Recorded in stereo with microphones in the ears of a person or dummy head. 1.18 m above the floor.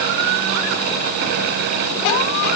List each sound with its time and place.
Only background noise.